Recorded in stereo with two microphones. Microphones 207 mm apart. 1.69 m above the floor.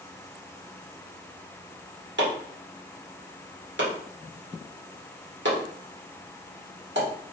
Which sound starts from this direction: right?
Chopping, at 2.2 s.